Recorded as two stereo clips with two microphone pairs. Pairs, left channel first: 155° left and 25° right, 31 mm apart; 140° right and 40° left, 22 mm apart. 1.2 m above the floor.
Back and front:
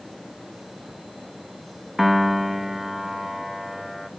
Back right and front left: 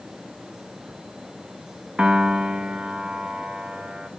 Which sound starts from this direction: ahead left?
A piano, at 2.0 s.